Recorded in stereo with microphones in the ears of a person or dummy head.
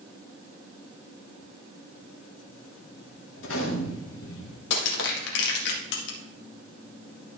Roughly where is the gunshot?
Left.